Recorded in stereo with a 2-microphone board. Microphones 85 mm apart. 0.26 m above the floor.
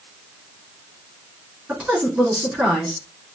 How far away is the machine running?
I don't hear a machine running.